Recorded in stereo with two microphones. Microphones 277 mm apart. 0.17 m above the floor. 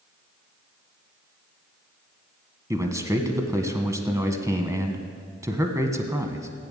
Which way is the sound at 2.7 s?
10° right (ahead or behind).